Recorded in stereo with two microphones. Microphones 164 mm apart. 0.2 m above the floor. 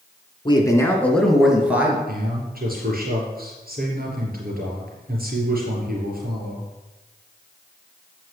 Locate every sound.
0.5 s a man speaking: 30° left (ahead or behind), 2.0 m; by 2.0 s 10° right (ahead or behind), 3 m
2.1 s a man speaking: 65° right (ahead or behind), 4 m